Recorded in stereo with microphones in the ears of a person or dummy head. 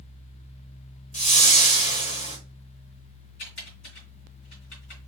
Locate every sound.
1.1 s a whoosh: 40° left (ahead or behind), 1.0 m
3.4 s typing on a keyboard: 50° left (ahead or behind), 3 m